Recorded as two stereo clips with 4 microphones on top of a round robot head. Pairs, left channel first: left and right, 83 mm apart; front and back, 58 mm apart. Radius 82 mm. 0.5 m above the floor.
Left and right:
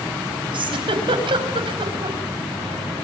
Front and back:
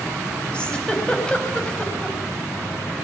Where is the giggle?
75° right, 4 m.